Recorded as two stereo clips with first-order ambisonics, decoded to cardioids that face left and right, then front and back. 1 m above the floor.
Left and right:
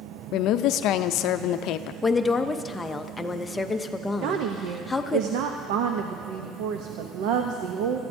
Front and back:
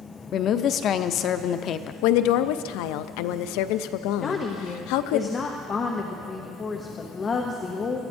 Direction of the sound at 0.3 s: 55° left.